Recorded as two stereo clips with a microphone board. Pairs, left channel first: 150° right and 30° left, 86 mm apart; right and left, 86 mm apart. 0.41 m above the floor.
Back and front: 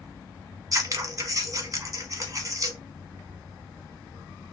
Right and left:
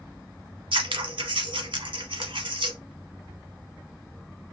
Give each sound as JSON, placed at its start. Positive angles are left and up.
{"t": 0.7, "sound": "scissors", "azimuth_deg": 80, "distance_m": 0.8}